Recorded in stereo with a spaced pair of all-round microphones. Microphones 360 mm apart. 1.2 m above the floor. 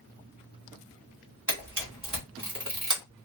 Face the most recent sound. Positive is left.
turn(degrees=-55)  # may be behind; listen again after turning